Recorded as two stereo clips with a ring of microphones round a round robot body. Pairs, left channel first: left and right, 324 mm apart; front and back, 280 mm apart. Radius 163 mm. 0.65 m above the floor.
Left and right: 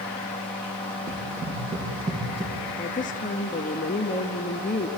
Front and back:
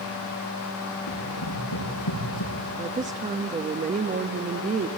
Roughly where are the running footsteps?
Ahead.